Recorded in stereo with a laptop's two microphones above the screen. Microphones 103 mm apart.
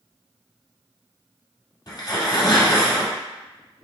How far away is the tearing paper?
About 1.3 m.